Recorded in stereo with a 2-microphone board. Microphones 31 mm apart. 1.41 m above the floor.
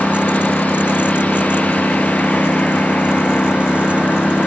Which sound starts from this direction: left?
A lawn mower, at 0.0 s.